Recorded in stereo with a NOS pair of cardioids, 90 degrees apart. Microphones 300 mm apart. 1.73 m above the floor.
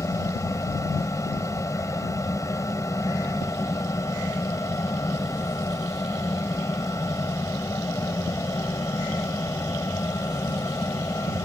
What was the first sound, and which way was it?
A fan, 10° left.